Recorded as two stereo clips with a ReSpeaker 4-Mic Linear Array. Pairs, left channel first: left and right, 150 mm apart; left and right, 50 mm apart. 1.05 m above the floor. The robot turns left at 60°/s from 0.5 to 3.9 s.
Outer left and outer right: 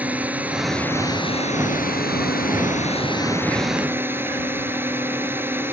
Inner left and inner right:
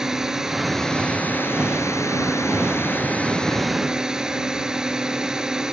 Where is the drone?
170° right; by 5.7 s 15° right.